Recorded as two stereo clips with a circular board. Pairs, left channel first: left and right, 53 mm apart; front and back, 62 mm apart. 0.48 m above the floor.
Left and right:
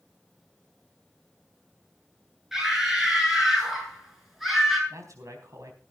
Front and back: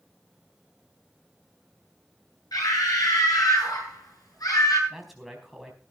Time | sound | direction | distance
2.5 | a scream | 5° right | 8 m
4.9 | a man speaking | 90° right | 4 m